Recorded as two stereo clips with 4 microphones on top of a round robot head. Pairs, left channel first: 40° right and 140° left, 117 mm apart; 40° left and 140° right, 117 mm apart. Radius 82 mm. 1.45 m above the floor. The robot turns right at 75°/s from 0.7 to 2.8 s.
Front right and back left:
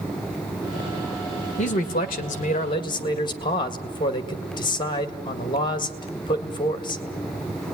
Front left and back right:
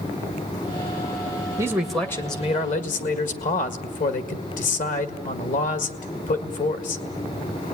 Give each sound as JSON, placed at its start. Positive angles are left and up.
{"t": 1.6, "sound": "a man speaking", "azimuth_deg": -75, "distance_m": 1.8}